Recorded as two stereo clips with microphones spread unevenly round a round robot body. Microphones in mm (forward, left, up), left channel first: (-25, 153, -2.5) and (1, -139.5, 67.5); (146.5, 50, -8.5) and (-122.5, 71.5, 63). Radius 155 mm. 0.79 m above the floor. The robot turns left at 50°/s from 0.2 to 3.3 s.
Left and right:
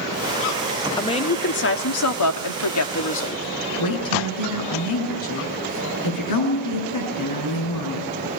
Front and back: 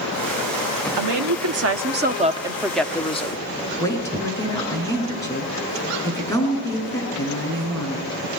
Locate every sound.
1.0 s a woman speaking: 170° left, 1.6 m; by 3.4 s 50° left, 1.6 m
3.8 s a woman speaking: 75° left, 9.5 m